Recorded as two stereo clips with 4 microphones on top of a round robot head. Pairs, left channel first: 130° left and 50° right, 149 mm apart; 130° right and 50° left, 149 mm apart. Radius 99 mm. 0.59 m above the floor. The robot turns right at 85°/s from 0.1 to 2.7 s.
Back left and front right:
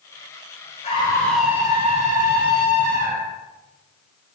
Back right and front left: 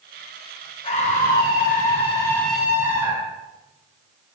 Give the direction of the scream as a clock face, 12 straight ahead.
6 o'clock.